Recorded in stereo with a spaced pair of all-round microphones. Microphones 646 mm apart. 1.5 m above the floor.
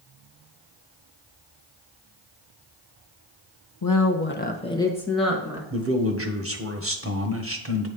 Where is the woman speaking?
35° left (ahead or behind), 0.7 m; by 5.6 s 5° right (ahead or behind), 1.6 m.